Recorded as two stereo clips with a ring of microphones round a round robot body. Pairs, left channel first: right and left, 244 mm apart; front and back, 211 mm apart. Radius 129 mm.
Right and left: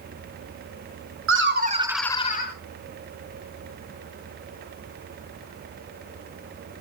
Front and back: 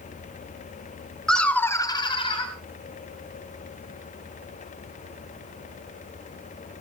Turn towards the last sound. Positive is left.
turn(degrees=-60)